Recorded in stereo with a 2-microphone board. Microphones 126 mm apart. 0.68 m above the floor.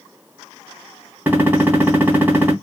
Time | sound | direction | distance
1.3 | a gunshot | 15° right (ahead or behind) | 1.1 m